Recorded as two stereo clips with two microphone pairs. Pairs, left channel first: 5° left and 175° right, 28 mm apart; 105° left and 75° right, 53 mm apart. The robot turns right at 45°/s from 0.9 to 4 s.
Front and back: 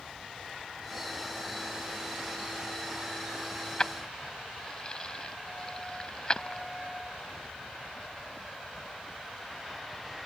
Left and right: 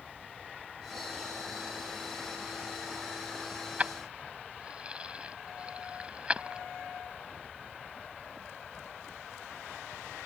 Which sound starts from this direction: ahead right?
Keys jangling, at 3.8 s.